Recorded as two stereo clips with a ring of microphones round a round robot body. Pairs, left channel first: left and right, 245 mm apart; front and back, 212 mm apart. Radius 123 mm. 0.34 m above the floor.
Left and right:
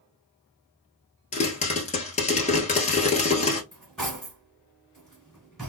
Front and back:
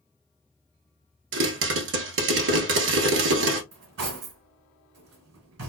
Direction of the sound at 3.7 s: Straight behind.